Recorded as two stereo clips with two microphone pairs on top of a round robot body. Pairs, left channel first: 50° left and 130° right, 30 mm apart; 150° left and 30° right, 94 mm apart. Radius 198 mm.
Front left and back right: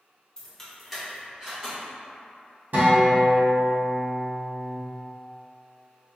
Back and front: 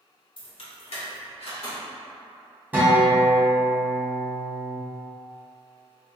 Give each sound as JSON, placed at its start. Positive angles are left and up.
{"t": 0.4, "sound": "keys jangling", "azimuth_deg": 115, "distance_m": 1.4}
{"t": 2.7, "sound": "a guitar", "azimuth_deg": -105, "distance_m": 1.4}